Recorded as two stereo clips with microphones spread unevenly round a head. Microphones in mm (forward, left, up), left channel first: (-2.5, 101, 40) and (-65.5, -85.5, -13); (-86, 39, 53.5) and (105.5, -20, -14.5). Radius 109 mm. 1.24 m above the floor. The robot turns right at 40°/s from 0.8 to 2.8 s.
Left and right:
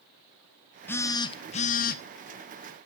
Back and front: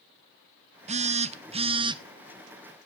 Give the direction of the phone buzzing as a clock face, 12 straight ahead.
1 o'clock.